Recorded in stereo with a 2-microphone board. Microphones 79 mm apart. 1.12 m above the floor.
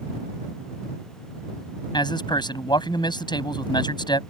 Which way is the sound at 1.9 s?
70° left (ahead or behind).